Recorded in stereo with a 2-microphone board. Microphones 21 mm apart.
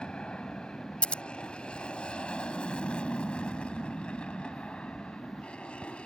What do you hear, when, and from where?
0.0 s an aircraft: 50° left (ahead or behind); by 6.1 s 60° left (ahead or behind)
1.0 s scissors: 75° left (ahead or behind)